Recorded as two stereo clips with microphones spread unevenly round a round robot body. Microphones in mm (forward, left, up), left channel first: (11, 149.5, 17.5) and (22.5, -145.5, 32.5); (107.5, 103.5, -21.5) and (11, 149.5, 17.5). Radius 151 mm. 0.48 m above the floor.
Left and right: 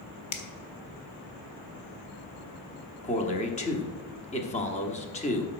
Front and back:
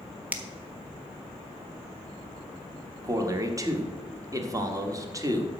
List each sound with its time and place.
0.3 s a finger snap: 65° left, 1.3 m
3.0 s a man speaking: 90° left, 1.3 m